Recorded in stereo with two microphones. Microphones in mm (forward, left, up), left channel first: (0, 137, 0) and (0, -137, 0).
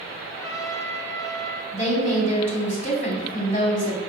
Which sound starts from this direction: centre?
A trumpet, at 0.3 s.